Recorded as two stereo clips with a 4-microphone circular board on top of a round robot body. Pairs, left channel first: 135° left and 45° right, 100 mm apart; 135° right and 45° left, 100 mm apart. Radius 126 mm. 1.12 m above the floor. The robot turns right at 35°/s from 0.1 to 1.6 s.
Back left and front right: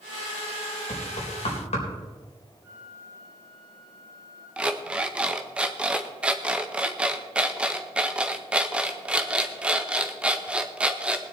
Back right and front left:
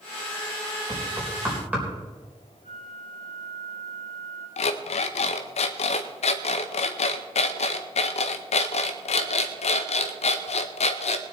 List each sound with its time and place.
0.9 s knocking: 95° left, 4 m; by 1.9 s 120° left, 4 m
2.6 s a flute: 25° left, 6.5 m
4.6 s an alarm clock: 125° right, 0.6 m